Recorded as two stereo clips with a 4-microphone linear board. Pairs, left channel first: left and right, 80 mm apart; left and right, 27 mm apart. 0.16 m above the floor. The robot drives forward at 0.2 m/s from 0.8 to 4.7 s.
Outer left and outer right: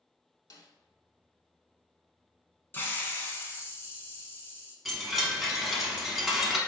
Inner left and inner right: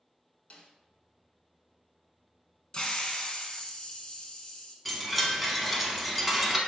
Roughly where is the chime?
Centre.